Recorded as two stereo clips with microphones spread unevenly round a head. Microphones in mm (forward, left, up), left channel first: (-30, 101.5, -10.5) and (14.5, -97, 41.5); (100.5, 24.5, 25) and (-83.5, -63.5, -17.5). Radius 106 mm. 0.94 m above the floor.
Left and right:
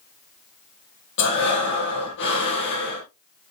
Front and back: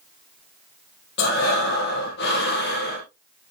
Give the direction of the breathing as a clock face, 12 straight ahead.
10 o'clock.